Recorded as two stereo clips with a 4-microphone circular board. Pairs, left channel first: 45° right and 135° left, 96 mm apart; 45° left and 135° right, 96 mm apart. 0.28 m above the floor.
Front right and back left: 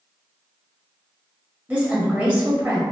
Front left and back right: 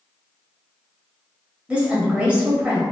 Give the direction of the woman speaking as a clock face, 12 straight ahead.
6 o'clock.